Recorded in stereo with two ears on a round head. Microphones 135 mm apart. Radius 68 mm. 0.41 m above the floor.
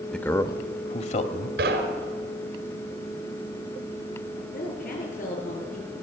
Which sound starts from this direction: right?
Knocking, at 1.6 s.